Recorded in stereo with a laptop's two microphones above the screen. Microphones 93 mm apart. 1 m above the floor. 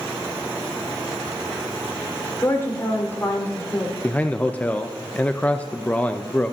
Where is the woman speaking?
25° left (ahead or behind), 4 m.